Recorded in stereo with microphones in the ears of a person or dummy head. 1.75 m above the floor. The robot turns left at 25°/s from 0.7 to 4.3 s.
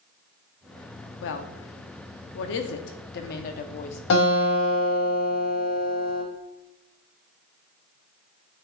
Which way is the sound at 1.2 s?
55° left (ahead or behind).